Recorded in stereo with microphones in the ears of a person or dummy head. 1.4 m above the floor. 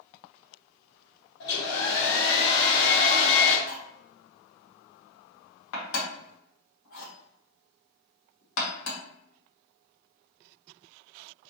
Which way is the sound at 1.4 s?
65° left (ahead or behind).